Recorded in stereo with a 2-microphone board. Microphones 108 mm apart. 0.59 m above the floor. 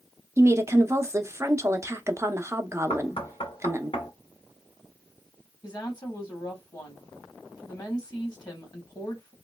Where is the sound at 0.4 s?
25° right (ahead or behind), 0.6 m.